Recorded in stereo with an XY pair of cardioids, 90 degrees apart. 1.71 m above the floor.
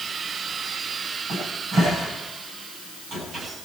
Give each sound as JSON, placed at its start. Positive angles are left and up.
{"t": 1.3, "sound": "a cupboard door", "azimuth_deg": -70, "distance_m": 9.0}